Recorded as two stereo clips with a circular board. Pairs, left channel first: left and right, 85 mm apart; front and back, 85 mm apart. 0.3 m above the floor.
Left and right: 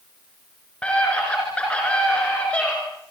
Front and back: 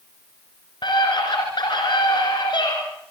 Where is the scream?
15° left, 3.5 m.